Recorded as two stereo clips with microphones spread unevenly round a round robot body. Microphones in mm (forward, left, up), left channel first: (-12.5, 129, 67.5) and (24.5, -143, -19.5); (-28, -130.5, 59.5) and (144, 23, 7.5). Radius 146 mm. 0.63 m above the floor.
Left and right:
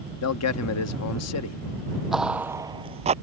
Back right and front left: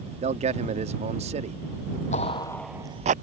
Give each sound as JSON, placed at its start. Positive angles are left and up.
{"t": 0.2, "sound": "a man speaking", "azimuth_deg": 70}
{"t": 2.1, "sound": "footsteps", "azimuth_deg": 175}